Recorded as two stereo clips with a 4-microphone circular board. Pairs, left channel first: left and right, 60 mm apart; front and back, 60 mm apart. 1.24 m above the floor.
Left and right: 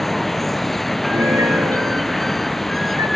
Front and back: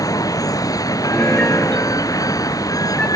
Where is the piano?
75° right.